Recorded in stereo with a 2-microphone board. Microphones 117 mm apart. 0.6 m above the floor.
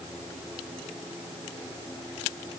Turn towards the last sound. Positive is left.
No sound to turn to.